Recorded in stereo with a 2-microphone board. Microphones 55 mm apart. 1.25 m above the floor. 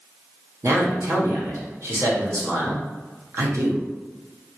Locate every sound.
0.6 s a man speaking: 60° right (ahead or behind), 1.0 m